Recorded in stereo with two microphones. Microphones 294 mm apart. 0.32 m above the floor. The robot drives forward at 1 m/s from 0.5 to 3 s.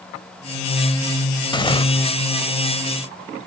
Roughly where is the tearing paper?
Centre.